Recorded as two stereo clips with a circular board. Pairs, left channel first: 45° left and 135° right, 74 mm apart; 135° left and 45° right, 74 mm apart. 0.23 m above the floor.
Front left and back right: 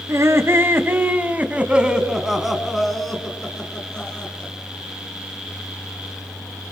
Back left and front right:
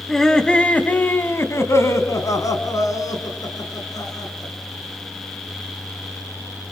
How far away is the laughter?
About 2 m.